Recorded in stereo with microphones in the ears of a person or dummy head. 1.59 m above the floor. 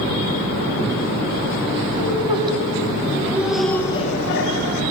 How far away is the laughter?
About 2 m.